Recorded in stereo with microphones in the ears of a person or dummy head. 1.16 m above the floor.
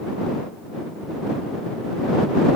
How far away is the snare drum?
I don't hear a snare drum.